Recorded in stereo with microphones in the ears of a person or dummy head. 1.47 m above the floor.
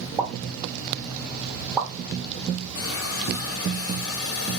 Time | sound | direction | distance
0.2 | a pop | 20° right (ahead or behind) | 1.1 m
2.8 | a hiss | 70° left (ahead or behind) | 0.9 m